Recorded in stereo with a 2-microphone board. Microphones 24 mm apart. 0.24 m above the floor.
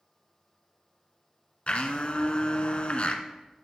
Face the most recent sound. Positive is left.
turn(degrees=55)  # may be behind; listen again after turning